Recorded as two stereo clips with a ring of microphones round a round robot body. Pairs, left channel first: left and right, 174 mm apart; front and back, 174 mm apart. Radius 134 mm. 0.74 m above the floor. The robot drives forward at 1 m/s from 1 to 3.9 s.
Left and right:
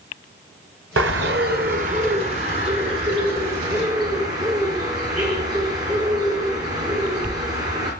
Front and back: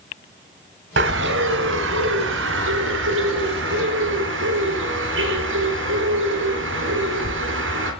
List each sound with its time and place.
1.0 s a bird: 130° right, 1.4 m; by 7.9 s 165° right, 4 m